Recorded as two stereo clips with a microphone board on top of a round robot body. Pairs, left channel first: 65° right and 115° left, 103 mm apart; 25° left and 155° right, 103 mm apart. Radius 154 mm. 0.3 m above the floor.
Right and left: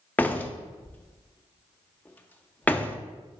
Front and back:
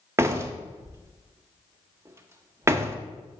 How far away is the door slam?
About 0.9 m.